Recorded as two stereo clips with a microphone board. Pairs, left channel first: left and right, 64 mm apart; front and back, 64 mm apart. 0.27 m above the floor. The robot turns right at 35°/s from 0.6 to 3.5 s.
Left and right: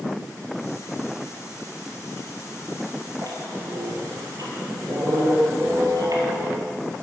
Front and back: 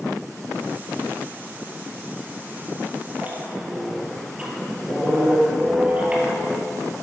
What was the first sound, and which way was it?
A squeak, 120° right.